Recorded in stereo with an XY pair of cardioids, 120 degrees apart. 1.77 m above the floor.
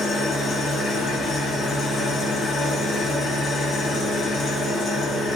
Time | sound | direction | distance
0.0 | an engine running | 45° left | 1.0 m